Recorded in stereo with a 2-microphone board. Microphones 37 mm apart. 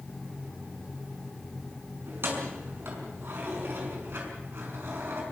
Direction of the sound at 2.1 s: 85° right.